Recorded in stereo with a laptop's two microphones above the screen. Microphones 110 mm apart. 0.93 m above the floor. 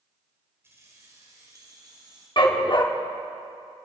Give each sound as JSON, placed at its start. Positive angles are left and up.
{"t": 0.6, "sound": "keys jangling", "side_deg": -25, "distance_m": 3.0}
{"t": 2.4, "sound": "a dog barking", "side_deg": 45, "distance_m": 0.9}